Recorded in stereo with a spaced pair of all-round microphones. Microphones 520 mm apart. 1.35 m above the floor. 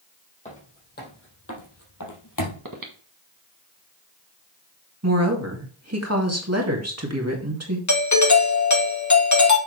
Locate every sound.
0.5 s footsteps: 15° left (ahead or behind), 3.5 m; by 2.6 s 40° left (ahead or behind), 2.5 m
2.6 s breathing: 40° right (ahead or behind), 1.5 m
5.0 s a woman speaking: 30° right (ahead or behind), 2 m
7.9 s a doorbell: 35° left (ahead or behind), 1.2 m